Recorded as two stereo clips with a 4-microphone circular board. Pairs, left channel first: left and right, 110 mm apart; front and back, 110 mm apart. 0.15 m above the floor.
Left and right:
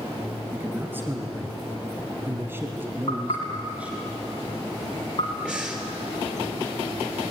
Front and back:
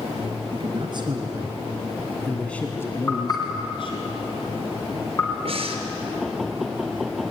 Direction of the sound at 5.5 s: 170° right.